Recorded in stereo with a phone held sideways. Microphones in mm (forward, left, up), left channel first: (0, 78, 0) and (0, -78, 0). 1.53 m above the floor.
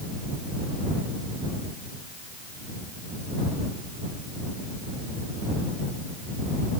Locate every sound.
Only background noise.